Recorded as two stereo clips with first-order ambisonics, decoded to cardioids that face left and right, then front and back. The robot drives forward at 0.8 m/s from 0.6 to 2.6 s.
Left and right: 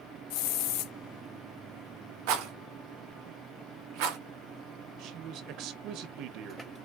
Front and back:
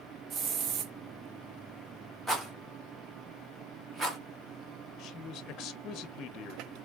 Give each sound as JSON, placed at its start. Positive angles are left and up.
{"t": 0.3, "sound": "a hiss", "azimuth_deg": 110, "distance_m": 0.8}
{"t": 2.3, "sound": "a rattle", "azimuth_deg": -90, "distance_m": 1.3}
{"t": 5.0, "sound": "a man speaking", "azimuth_deg": -50, "distance_m": 0.8}